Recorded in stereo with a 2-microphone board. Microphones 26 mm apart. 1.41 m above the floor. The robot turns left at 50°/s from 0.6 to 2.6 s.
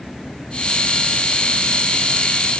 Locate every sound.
Only background noise.